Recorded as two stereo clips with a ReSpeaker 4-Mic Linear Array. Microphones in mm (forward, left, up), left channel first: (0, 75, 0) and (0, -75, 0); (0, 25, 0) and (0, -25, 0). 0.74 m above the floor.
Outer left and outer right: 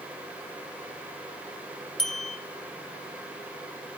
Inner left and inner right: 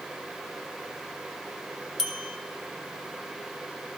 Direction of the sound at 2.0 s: 5° left (ahead or behind).